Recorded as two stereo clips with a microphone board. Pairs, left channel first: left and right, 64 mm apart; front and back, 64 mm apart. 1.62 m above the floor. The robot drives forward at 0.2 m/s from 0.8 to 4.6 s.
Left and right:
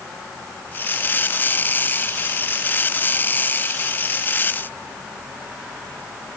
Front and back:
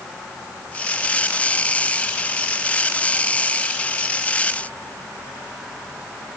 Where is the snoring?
No snoring in this recording.